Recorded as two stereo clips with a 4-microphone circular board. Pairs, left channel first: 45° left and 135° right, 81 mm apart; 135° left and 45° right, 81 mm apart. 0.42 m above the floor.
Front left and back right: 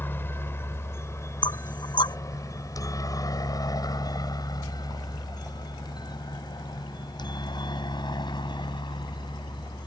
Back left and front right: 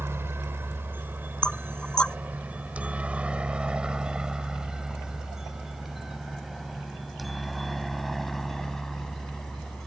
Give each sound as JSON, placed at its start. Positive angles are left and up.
{"t": 0.0, "sound": "a helicopter", "azimuth_deg": -5}
{"t": 1.4, "sound": "knocking", "azimuth_deg": 55}